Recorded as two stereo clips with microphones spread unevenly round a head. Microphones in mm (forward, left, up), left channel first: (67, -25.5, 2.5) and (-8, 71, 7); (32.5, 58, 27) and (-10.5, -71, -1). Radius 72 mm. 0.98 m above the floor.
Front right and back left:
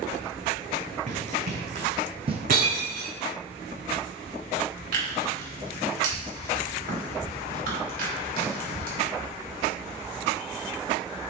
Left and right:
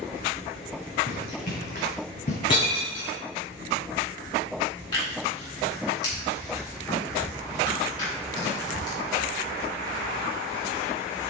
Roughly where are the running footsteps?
Left.